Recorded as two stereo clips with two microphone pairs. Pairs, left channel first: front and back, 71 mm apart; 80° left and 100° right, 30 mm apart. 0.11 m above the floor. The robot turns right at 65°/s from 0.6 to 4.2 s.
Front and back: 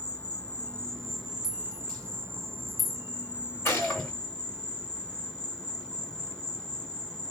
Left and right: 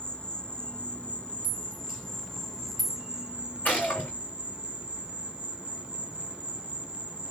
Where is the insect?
55° left, 1.0 m; by 7.3 s 70° right, 1.0 m.